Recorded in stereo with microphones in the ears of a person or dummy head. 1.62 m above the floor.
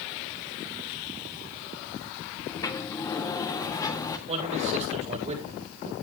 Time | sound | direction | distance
2.5 | a sliding door | 15° left (ahead or behind) | 1.6 m
4.3 | a man speaking | 35° right (ahead or behind) | 7.5 m